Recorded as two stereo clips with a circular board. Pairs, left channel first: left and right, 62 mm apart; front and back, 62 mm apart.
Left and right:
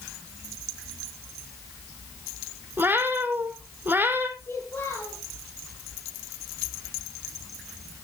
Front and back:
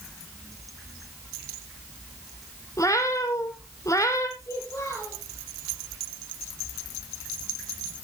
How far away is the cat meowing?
About 1.3 m.